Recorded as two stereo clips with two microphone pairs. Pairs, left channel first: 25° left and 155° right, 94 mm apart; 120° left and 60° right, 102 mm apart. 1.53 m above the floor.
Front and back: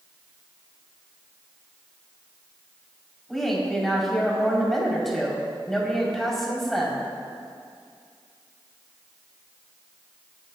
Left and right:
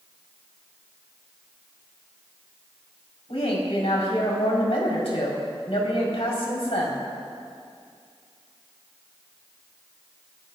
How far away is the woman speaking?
About 4 m.